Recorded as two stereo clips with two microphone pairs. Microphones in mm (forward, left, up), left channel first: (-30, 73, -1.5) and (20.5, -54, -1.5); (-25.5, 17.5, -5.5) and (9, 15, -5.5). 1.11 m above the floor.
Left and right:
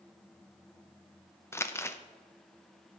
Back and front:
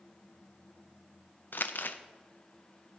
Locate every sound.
1.5 s crumpling: straight behind, 0.6 m